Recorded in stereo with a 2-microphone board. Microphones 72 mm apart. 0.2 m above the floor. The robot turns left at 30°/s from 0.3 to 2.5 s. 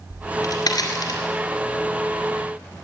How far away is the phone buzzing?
I don't hear a phone buzzing.